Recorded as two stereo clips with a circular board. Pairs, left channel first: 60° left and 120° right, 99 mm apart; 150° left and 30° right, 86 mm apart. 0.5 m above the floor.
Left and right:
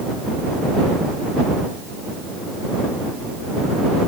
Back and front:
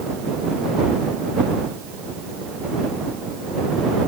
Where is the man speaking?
I don't hear a man speaking.